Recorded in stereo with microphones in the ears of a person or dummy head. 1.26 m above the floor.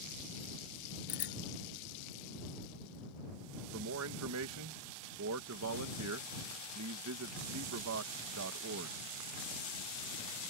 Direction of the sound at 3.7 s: 80° right.